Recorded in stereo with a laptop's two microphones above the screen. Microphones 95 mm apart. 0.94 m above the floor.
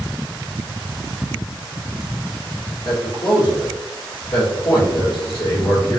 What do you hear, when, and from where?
2.9 s a man speaking: 55° left (ahead or behind), 1.5 m